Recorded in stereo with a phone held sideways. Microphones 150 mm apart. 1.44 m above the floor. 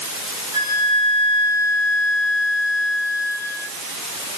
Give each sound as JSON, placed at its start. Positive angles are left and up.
{"t": 0.5, "sound": "a flute", "side_deg": -25, "distance_m": 7.0}